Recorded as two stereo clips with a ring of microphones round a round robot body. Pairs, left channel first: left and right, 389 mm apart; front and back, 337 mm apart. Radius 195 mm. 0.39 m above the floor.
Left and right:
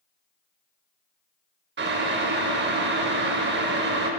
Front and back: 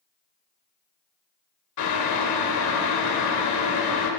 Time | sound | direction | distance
1.8 | boiling | 30° right | 0.7 m